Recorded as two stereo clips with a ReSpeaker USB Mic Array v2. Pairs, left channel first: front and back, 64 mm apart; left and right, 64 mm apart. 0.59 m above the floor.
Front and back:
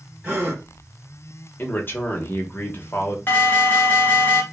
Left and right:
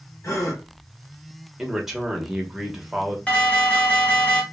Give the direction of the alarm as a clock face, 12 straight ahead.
11 o'clock.